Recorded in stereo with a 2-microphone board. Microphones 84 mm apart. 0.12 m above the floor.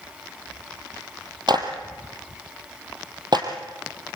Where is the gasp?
I don't hear a gasp.